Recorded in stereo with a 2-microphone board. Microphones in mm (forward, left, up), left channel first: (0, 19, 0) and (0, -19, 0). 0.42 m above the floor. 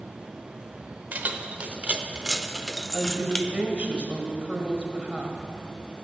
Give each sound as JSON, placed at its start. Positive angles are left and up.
{"t": 1.1, "sound": "keys jangling", "side_deg": -45, "distance_m": 1.1}
{"t": 2.9, "sound": "a woman speaking", "side_deg": -35, "distance_m": 1.9}